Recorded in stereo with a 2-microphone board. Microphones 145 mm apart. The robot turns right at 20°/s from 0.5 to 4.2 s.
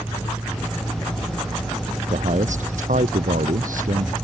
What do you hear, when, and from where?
2.1 s a man speaking: 120° right; by 4.1 s 80° right